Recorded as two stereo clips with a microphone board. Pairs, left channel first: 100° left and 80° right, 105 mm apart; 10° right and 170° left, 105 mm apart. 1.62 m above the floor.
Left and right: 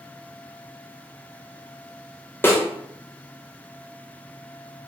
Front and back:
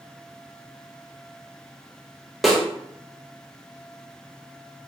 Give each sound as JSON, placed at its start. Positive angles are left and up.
{"t": 2.4, "sound": "a snare drum", "azimuth_deg": 80, "distance_m": 0.6}